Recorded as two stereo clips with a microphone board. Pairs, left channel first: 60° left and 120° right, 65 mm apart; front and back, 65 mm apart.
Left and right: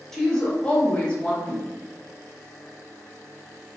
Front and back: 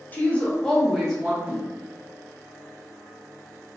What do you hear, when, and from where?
0.1 s a woman speaking: 15° right, 0.8 m; by 1.4 s 105° left, 0.9 m
1.4 s a whoosh: 115° left, 1.1 m